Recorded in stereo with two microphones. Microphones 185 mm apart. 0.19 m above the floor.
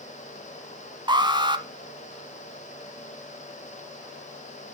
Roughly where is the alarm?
Right.